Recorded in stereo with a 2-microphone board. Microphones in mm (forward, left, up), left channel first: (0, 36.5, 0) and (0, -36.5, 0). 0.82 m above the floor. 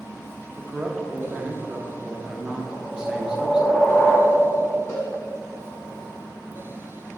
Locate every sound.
0.6 s a man speaking: 10° right (ahead or behind), 0.7 m
2.7 s a whoosh: 5° left (ahead or behind), 0.7 m
4.9 s a cowbell: 40° left (ahead or behind), 2.0 m